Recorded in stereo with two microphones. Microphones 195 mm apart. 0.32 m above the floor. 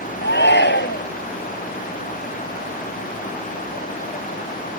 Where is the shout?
65° left (ahead or behind).